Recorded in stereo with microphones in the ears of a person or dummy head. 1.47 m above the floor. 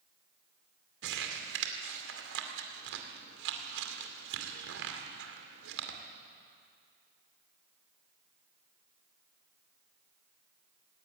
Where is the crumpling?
75° right (ahead or behind), 2.5 m.